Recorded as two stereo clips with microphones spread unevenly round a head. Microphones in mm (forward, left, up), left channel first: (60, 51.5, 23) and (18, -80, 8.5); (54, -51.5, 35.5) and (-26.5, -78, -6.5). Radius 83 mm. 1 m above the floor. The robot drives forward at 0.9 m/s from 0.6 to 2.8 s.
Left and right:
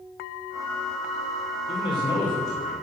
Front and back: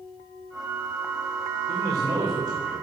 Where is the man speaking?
135° left, 3 m; by 2.7 s 145° left, 3.5 m.